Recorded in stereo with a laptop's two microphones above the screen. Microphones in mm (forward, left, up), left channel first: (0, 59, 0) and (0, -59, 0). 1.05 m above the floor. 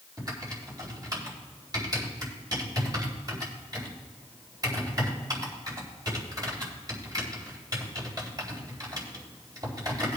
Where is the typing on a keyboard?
35° right (ahead or behind), 3.5 m.